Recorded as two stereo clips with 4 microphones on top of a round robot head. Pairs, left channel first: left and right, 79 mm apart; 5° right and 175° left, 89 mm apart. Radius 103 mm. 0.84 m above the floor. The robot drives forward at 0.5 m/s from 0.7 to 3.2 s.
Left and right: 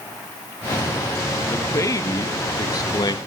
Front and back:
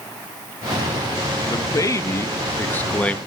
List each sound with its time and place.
1.5 s a man speaking: 40° left, 1.7 m; by 3.2 s 70° left, 1.3 m